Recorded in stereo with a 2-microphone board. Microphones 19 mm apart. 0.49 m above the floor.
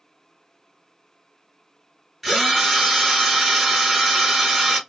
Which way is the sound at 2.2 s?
5° right (ahead or behind).